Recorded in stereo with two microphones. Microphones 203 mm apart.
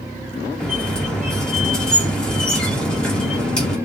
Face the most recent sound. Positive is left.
turn(degrees=5)  # may be behind; listen again after turning